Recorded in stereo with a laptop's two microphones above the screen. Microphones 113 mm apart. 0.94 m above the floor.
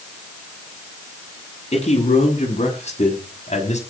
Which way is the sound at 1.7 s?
60° left (ahead or behind).